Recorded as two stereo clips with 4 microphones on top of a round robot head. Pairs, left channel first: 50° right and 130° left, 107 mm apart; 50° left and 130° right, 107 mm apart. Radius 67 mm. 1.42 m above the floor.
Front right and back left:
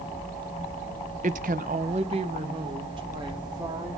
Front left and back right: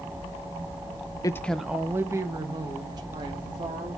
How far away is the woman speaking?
About 0.6 m.